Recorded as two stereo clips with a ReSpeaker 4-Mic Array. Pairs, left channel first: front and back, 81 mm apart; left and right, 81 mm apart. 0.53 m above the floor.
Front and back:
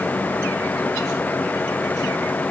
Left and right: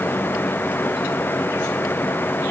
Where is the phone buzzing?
No phone buzzing in this recording.